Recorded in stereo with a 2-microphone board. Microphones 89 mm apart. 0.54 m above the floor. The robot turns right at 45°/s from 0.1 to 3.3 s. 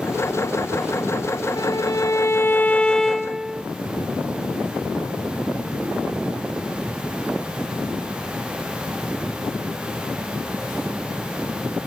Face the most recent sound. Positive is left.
turn(degrees=-175)